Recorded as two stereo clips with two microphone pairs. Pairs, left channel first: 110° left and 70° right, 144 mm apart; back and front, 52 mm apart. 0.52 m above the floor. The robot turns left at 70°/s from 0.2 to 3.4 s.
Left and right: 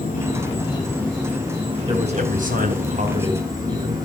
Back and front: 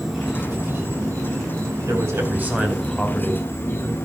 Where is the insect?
85° left, 5 m; by 4.1 s 140° right, 5 m.